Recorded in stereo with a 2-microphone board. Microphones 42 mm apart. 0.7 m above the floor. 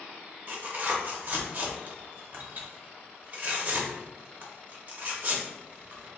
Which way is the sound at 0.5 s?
45° right (ahead or behind).